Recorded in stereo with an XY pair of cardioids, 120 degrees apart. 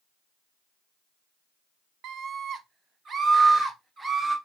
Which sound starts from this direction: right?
A scream, at 2.0 s.